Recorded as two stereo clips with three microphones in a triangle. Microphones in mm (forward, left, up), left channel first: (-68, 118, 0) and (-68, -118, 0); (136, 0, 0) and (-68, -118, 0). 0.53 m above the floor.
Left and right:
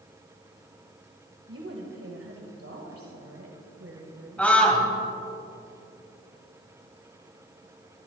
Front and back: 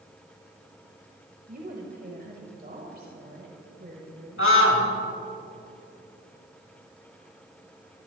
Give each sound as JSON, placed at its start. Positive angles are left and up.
{"t": 1.5, "sound": "a woman speaking", "azimuth_deg": -100, "distance_m": 2.0}
{"t": 4.4, "sound": "a scream", "azimuth_deg": 5, "distance_m": 2.5}